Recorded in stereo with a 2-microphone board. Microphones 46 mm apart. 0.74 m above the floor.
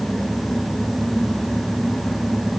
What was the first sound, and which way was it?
Only background noise.